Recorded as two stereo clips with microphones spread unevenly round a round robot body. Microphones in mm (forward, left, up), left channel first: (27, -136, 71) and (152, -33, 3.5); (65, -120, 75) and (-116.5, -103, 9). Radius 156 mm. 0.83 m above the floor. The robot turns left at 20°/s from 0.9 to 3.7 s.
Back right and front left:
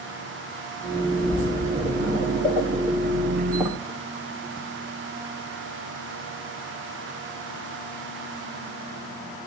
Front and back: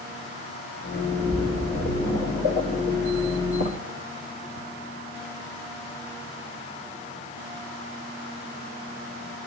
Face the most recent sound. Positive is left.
turn(degrees=-30)